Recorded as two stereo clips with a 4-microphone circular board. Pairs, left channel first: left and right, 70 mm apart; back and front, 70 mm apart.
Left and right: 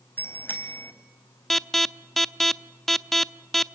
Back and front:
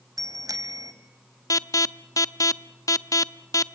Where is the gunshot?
I don't hear a gunshot.